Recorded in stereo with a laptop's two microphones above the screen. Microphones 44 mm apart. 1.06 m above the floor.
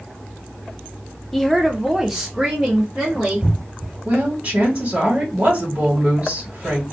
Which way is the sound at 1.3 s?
5° left (ahead or behind).